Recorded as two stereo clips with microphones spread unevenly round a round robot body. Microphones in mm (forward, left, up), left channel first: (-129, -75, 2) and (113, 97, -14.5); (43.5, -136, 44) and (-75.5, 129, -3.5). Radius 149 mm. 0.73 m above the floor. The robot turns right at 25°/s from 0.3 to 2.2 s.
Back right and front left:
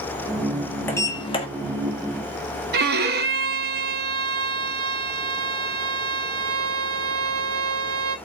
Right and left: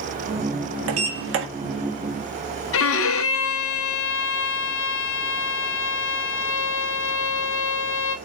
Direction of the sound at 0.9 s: 130° left.